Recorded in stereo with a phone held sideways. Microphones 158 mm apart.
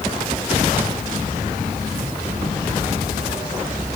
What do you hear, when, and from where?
Only background noise.